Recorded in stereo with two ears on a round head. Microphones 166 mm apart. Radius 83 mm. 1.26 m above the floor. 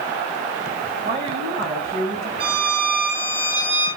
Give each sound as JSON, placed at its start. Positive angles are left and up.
{"t": 1.0, "sound": "a woman speaking", "side_deg": -35, "distance_m": 9.0}
{"t": 2.4, "sound": "a violin", "side_deg": -30, "distance_m": 6.0}